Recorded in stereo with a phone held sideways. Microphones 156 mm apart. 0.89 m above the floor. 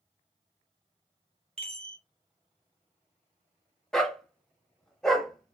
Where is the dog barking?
5° left (ahead or behind), 0.8 m.